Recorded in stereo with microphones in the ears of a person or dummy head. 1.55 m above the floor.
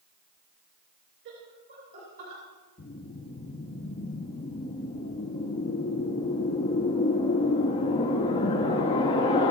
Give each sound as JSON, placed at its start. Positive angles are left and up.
{"t": 1.2, "sound": "laughter", "side_deg": -70, "distance_m": 5.0}
{"t": 2.8, "sound": "a whoosh", "side_deg": 25, "distance_m": 1.9}